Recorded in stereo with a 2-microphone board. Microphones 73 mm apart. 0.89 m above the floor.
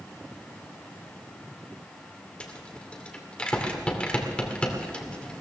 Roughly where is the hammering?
No hammering in this recording.